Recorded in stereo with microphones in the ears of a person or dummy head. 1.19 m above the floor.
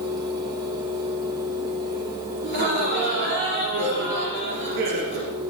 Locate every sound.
0.0 s a fan: 20° right (ahead or behind), 1.4 m
2.4 s laughter: 65° right (ahead or behind), 3 m